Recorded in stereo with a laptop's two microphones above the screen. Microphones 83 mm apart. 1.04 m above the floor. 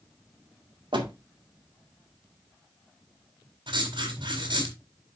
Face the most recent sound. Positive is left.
turn(degrees=-80)